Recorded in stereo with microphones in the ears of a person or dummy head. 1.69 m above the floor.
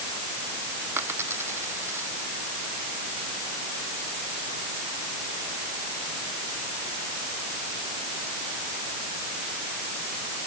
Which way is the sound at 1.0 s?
10° right (ahead or behind).